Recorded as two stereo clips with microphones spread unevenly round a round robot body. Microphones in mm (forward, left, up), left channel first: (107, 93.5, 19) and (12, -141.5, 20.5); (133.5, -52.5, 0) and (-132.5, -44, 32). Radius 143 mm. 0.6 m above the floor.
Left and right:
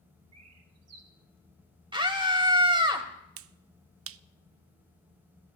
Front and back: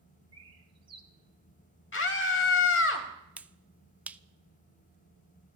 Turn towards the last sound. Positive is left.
turn(degrees=-95)